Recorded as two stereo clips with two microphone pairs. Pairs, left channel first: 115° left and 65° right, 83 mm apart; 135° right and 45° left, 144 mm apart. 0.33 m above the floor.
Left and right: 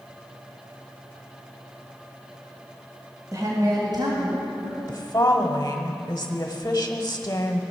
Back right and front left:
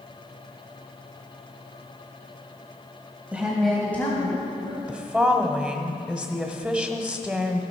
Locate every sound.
3.3 s a woman speaking: 35° right, 1.8 m; by 4.8 s 80° right, 3 m
4.9 s a woman speaking: 140° left, 1.1 m